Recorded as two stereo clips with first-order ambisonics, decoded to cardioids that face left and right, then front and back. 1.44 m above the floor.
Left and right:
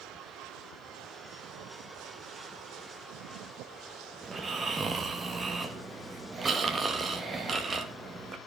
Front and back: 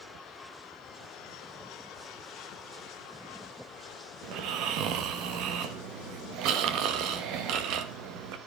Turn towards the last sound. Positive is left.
turn(degrees=-160)